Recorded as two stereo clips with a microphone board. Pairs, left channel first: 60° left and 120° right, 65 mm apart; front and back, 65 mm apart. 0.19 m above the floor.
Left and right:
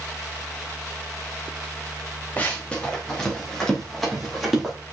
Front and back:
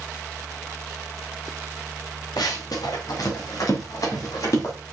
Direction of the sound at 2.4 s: 5° right.